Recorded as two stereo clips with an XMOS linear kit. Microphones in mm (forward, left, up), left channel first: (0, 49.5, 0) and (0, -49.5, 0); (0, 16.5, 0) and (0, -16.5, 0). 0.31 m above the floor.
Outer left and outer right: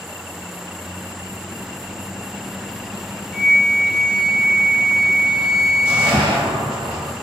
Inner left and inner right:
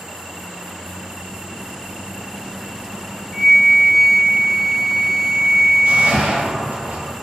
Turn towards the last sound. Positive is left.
turn(degrees=-55)  # may be behind; listen again after turning